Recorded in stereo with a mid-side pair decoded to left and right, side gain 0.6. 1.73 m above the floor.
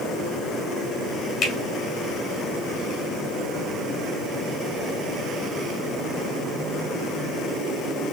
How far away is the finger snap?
About 2 m.